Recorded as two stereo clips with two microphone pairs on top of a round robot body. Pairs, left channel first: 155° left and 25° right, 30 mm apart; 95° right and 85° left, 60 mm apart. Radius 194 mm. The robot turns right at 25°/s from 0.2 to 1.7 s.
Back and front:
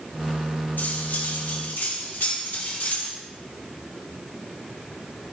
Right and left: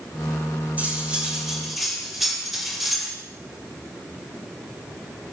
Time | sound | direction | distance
0.8 | cutlery clinking | 150° left | 3 m